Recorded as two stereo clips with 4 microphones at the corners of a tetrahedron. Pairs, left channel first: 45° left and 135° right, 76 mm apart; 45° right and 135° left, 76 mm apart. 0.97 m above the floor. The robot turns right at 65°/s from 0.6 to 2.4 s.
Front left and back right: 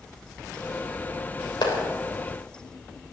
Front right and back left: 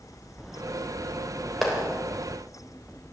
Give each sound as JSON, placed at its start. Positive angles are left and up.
{"t": 1.6, "sound": "a clap", "azimuth_deg": 45, "distance_m": 3.0}